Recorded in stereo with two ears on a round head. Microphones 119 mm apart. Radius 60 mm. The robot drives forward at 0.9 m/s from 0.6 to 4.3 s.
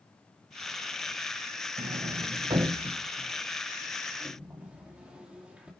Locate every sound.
1.8 s a sliding door: 45° right (ahead or behind), 0.6 m; by 5.7 s 10° right (ahead or behind), 2.5 m